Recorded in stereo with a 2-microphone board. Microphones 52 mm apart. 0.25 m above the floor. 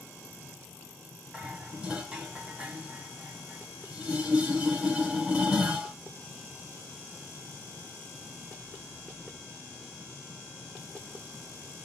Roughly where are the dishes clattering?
Right.